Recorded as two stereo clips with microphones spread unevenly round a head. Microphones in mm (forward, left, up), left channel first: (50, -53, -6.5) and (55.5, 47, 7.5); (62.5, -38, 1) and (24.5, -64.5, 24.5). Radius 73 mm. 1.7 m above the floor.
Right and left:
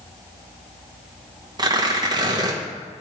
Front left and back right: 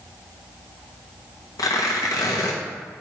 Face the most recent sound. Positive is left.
turn(degrees=45)